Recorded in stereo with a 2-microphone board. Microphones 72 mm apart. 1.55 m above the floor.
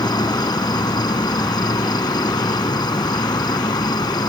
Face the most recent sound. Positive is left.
turn(degrees=75)  # may be behind; listen again after turning